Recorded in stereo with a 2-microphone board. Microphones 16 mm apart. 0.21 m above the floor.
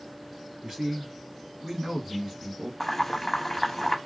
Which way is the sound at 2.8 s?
15° left (ahead or behind).